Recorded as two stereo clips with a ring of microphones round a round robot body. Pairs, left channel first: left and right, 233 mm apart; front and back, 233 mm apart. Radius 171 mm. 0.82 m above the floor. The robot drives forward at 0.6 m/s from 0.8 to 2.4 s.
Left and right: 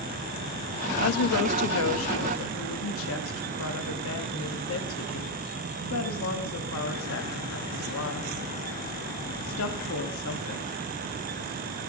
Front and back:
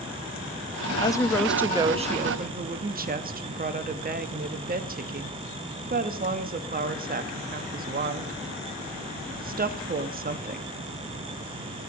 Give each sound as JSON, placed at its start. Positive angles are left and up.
{"t": 1.0, "sound": "a woman speaking", "azimuth_deg": 70, "distance_m": 0.9}